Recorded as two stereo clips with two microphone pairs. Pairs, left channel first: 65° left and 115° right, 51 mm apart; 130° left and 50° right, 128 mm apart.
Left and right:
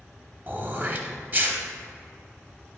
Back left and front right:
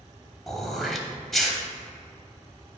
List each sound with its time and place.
0.5 s throat clearing: 140° right, 0.8 m